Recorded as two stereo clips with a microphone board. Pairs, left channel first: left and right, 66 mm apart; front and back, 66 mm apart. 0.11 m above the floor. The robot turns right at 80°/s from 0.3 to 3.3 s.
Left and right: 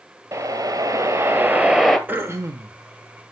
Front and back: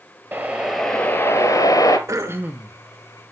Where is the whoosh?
130° right, 1.2 m; by 2.0 s 5° left, 1.2 m.